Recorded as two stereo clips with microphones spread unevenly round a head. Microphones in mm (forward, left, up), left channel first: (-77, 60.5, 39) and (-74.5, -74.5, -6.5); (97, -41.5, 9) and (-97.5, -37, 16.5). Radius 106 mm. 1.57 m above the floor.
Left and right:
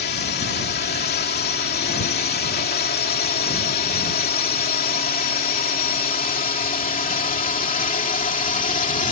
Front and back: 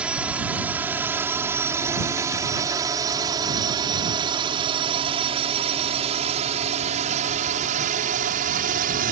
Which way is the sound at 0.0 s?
95° left.